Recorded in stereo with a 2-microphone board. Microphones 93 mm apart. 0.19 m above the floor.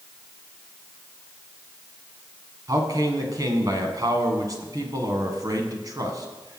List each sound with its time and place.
2.7 s a man speaking: 40° right (ahead or behind), 1.8 m